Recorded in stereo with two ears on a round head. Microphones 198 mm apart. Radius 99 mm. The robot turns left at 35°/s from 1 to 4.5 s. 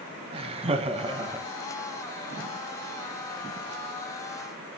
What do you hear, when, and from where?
0.3 s laughter: 25° right (ahead or behind), 1.7 m; by 1.5 s 10° right (ahead or behind), 1.7 m